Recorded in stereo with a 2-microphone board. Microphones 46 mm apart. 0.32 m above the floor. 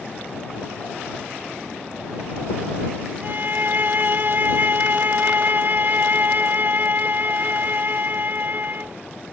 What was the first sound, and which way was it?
A violin, 50° right (ahead or behind).